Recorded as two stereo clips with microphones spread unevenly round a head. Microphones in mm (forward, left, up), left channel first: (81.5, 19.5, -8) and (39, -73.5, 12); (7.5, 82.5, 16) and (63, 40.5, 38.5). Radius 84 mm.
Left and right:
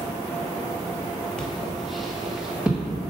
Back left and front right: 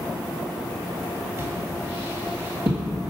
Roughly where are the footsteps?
Ahead.